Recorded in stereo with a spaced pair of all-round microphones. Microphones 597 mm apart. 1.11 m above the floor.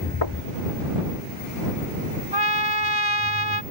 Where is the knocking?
45° left (ahead or behind).